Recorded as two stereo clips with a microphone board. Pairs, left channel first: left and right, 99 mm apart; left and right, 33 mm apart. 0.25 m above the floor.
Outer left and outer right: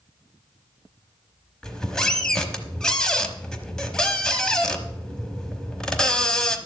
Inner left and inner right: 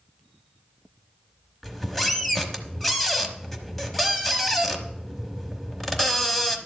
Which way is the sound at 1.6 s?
5° left (ahead or behind).